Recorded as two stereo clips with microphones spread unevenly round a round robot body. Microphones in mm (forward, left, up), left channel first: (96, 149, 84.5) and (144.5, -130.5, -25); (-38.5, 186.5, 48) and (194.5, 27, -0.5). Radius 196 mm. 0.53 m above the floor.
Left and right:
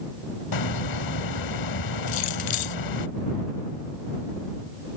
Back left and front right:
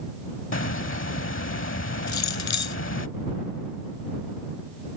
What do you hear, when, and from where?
0.5 s a hiss: 95° left
2.1 s keys jangling: 125° left